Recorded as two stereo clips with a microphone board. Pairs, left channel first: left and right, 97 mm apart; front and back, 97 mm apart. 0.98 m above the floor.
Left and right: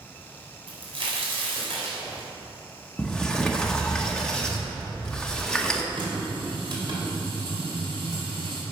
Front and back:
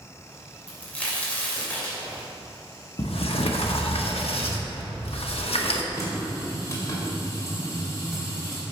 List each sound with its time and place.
0.7 s a crack: 75° right, 3 m
3.0 s a sliding door: 10° left, 0.9 m
5.9 s a running tap: 55° right, 2.5 m